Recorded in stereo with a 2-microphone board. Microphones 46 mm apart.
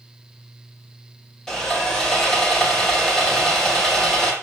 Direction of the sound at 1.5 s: 10° left (ahead or behind).